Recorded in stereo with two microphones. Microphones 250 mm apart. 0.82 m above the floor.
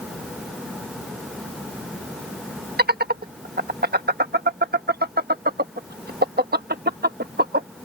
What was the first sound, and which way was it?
Laughter, 40° right (ahead or behind).